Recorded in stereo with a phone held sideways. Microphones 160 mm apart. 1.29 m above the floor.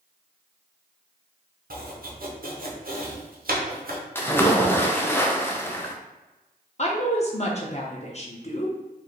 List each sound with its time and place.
1.7 s chopping: 65° right (ahead or behind), 0.8 m
4.2 s a splash: 15° left (ahead or behind), 0.5 m
6.8 s a woman speaking: 45° left (ahead or behind), 0.8 m